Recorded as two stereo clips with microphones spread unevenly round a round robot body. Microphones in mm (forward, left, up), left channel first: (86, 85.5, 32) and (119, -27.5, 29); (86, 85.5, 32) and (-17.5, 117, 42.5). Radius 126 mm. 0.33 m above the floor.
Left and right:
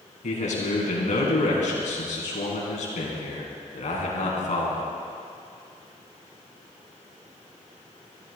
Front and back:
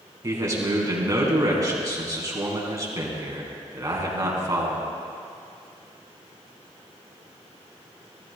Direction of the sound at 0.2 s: 105° left.